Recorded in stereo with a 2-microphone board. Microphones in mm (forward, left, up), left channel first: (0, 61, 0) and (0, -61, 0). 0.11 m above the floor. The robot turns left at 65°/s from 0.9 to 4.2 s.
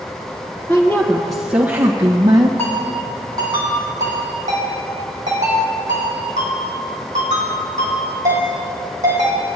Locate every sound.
0.7 s a woman speaking: 30° left, 1.6 m; by 2.5 s 75° right, 1.6 m
2.6 s a ringtone: 20° left (ahead or behind), 3.5 m; by 9.6 s 75° right (ahead or behind), 3.5 m